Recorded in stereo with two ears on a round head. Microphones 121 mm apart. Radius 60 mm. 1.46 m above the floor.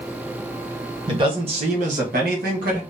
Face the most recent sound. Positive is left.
turn(degrees=-65)  # may be behind; listen again after turning